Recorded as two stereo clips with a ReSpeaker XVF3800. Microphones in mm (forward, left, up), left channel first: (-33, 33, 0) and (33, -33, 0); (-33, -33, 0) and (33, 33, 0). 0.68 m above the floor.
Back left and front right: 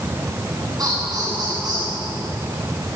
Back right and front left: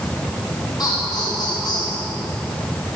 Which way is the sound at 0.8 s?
90° right.